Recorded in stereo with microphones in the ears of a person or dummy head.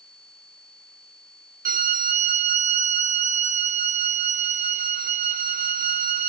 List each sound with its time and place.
1.6 s a violin: 45° right (ahead or behind), 1.3 m